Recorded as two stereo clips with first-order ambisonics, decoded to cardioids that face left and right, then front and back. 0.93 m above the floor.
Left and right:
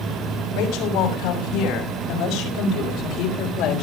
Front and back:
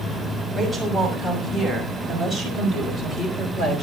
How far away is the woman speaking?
About 5.5 m.